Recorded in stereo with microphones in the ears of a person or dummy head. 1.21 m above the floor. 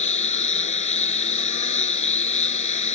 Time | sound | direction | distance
0.0 | a lawn mower | 35° left (ahead or behind) | ?